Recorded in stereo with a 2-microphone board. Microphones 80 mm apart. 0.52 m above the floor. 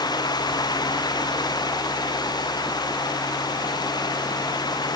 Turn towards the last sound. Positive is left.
No sound to turn to.